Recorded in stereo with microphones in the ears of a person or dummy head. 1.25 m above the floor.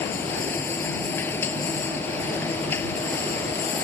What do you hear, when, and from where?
0.0 s a machine running: 15° left (ahead or behind)